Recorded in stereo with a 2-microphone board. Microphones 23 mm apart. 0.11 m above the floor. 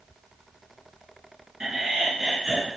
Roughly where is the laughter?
Right.